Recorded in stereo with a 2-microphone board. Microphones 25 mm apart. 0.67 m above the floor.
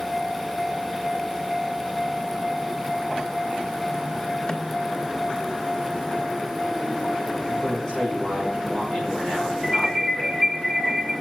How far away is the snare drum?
About 1.2 m.